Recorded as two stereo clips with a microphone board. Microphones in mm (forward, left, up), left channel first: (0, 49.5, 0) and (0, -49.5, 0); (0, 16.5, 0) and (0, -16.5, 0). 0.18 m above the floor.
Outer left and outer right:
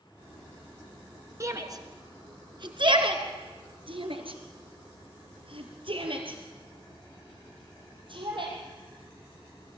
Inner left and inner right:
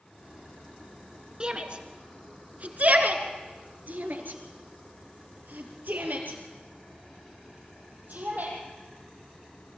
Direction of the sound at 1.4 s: 35° right (ahead or behind).